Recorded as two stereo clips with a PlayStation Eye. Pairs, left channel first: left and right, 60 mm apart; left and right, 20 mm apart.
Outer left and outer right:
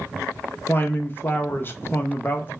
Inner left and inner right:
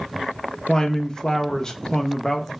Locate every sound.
0.7 s a man speaking: 35° left (ahead or behind), 0.5 m